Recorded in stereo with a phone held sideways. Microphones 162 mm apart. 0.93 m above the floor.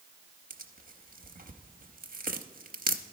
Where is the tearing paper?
70° right (ahead or behind), 0.7 m.